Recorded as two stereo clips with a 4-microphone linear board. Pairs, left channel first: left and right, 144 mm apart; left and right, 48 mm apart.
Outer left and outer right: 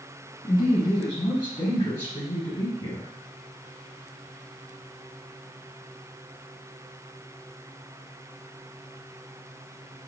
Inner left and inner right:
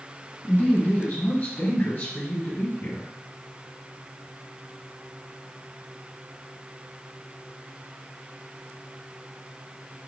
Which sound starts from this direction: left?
A woman speaking, at 0.4 s.